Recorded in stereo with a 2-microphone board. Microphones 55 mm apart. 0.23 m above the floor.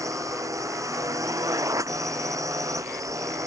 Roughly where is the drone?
Right.